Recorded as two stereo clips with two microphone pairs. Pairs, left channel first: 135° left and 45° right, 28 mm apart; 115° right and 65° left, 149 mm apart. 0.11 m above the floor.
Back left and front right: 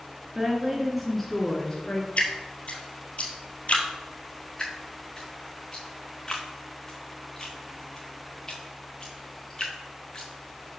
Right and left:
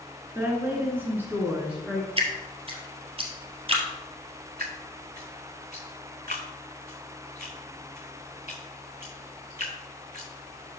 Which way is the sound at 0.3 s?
Straight ahead.